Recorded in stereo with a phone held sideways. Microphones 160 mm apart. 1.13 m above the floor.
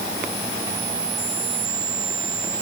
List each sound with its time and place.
Only background noise.